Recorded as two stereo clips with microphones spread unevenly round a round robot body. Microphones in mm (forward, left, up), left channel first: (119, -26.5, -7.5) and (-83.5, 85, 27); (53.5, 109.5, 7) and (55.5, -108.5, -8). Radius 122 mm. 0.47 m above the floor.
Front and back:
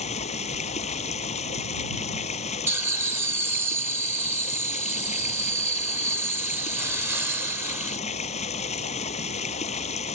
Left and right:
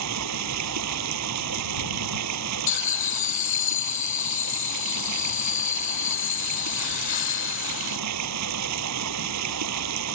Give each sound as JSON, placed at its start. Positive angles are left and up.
{"t": 0.0, "sound": "running water", "azimuth_deg": -95}
{"t": 2.7, "sound": "laughter", "azimuth_deg": 65}